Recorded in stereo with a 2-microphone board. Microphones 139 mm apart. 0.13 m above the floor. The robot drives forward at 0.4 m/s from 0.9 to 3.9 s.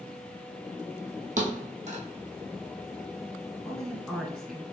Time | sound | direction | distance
1.4 | a thud | 65° right (ahead or behind) | 1.5 m
3.6 | a woman speaking | centre (ahead or behind) | 1.4 m